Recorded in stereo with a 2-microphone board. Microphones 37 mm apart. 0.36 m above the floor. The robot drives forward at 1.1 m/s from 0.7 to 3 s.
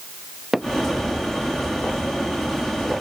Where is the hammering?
5° right (ahead or behind).